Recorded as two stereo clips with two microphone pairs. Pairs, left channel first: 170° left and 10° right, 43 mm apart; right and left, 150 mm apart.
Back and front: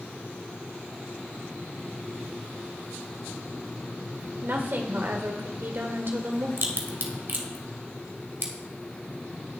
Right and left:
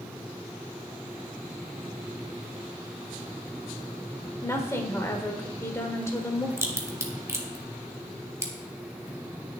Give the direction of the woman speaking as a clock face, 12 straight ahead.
1 o'clock.